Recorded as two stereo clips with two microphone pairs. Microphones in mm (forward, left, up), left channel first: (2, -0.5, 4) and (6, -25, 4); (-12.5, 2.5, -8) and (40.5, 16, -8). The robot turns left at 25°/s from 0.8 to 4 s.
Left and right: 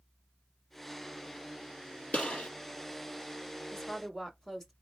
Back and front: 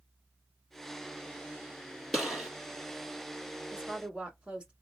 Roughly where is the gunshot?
Left.